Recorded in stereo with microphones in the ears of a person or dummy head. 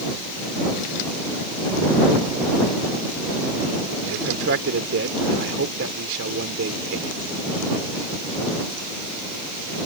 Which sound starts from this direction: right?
A man speaking, at 4.1 s.